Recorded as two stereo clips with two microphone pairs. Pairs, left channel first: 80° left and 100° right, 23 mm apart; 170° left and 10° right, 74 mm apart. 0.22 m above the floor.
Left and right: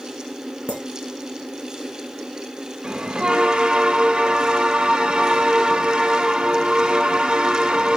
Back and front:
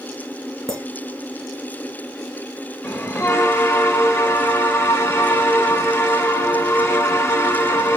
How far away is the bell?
About 1.2 m.